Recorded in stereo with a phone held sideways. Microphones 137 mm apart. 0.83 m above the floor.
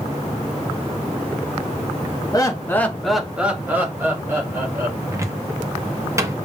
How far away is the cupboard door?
About 0.7 m.